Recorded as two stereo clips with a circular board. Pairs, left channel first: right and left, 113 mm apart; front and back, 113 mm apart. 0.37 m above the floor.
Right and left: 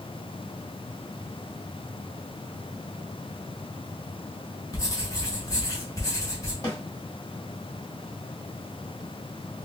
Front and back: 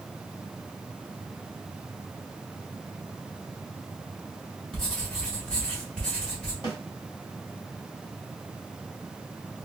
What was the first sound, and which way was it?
Writing, 80° right.